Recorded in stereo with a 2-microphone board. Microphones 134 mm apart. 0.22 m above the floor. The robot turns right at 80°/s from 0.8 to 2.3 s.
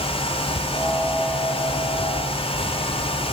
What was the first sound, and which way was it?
Only background noise.